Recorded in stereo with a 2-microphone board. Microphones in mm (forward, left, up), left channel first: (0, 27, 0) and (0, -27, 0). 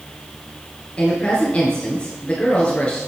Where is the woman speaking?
20° left (ahead or behind), 1.9 m.